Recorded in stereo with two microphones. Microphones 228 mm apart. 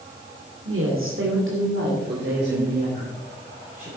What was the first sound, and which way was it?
A woman speaking, 70° right (ahead or behind).